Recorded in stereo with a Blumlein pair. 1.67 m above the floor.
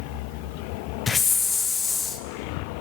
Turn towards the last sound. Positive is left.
turn(degrees=15)